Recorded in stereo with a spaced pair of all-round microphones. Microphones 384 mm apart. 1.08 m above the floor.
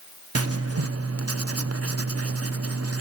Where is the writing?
40° right (ahead or behind), 0.6 m.